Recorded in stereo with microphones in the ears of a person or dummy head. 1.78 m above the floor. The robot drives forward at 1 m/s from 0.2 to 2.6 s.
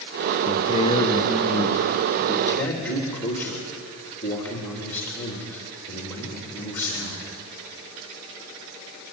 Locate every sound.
0.5 s a man speaking: 35° left (ahead or behind), 1.2 m; by 7.3 s 15° left (ahead or behind), 3 m